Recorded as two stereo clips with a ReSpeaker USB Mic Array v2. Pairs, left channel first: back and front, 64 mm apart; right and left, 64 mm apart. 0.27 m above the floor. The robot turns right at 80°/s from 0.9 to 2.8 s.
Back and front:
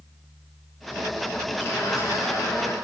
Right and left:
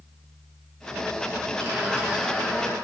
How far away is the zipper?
About 4 m.